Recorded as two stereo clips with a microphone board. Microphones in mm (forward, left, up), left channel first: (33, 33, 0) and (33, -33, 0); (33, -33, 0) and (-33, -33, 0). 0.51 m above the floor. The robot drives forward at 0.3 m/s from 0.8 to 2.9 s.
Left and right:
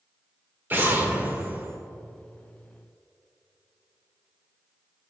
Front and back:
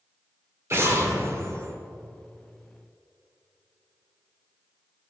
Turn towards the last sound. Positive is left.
turn(degrees=-160)